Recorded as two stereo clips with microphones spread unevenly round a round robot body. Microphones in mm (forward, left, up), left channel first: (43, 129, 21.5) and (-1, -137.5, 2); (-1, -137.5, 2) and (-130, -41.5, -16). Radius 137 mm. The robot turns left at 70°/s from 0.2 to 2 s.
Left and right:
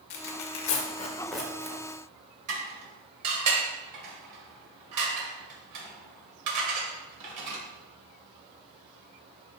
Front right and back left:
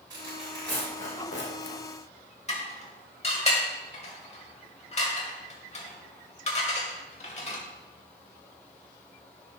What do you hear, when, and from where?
0.1 s tearing paper: 70° left, 1.4 m; by 1.8 s 40° right, 1.4 m
2.5 s dishes clattering: 85° right, 1.9 m